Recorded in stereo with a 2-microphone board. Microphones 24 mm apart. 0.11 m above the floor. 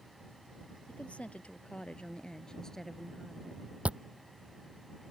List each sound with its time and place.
0.9 s a woman speaking: 65° left (ahead or behind); by 3.8 s 10° right (ahead or behind)
3.9 s chewing: 60° right (ahead or behind)